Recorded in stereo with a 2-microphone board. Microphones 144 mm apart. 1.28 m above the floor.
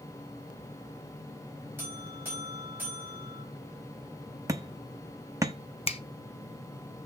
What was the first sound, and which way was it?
A buzzer, 15° right (ahead or behind).